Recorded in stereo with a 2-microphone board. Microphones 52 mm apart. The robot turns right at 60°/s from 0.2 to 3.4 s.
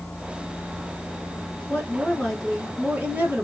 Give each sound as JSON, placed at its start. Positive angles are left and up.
{"t": 1.7, "sound": "a woman speaking", "azimuth_deg": 135, "distance_m": 2.5}